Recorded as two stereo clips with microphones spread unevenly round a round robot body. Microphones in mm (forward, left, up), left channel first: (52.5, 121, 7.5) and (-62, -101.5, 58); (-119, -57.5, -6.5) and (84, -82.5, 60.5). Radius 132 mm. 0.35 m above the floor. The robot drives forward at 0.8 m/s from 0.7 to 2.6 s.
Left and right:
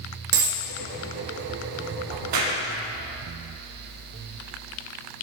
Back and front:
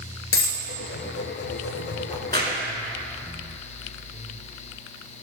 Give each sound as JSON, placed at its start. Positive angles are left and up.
{"t": 0.3, "sound": "a dropped coin", "azimuth_deg": -155, "distance_m": 1.0}
{"t": 2.1, "sound": "a crack", "azimuth_deg": -110, "distance_m": 1.5}